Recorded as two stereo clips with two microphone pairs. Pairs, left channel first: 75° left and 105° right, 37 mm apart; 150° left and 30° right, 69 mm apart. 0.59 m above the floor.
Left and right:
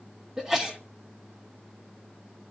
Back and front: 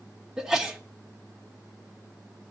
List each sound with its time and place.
0.4 s a sneeze: 95° right, 1.3 m